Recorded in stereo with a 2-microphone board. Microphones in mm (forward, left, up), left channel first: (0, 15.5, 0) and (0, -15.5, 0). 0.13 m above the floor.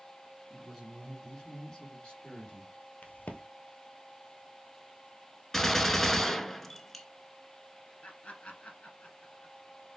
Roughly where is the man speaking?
Centre.